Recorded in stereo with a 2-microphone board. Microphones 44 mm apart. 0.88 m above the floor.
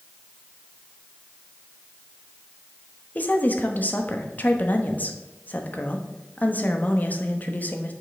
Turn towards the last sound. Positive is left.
turn(degrees=40)  # may be behind; listen again after turning